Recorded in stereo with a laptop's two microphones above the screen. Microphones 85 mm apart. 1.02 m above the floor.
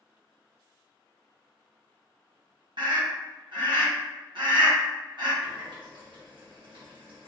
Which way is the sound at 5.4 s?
75° right (ahead or behind).